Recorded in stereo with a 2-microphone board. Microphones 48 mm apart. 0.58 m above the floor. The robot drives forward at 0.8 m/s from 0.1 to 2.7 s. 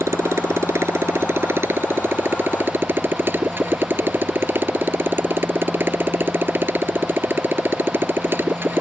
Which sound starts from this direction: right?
A motorcycle, at 0.0 s.